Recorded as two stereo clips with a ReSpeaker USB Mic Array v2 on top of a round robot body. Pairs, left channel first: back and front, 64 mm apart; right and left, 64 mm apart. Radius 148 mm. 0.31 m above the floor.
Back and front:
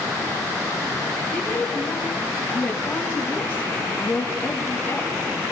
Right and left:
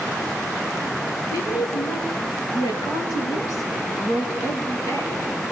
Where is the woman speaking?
105° right, 6.5 m; by 5.3 s 125° right, 8 m.